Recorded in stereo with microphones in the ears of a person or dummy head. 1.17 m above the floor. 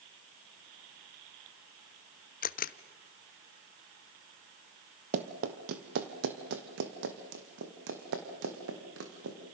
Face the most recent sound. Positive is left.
turn(degrees=-75)  # may be behind; listen again after turning